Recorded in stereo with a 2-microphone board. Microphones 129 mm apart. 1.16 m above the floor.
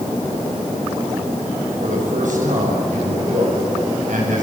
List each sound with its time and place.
1.8 s a man speaking: 85° right, 7.5 m; by 4.4 s 80° right, 9.5 m